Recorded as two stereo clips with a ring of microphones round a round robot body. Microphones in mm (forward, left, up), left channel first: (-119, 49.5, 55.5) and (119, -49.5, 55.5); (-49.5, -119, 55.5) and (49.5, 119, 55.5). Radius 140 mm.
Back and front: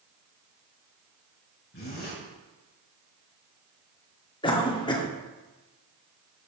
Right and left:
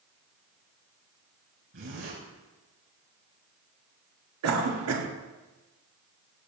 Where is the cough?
85° left, 1.8 m.